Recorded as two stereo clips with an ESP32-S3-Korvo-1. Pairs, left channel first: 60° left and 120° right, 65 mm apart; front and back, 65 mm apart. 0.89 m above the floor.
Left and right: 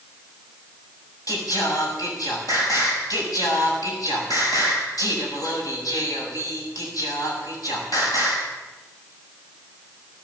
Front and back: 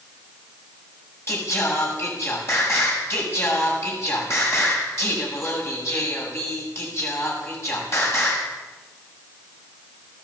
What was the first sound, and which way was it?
Singing, 45° left.